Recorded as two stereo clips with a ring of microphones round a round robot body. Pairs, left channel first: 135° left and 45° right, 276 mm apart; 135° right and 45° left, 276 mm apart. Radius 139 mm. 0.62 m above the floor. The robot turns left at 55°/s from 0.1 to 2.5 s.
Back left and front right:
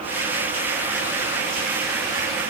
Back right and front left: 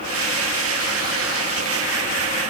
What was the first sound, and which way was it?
Only background noise.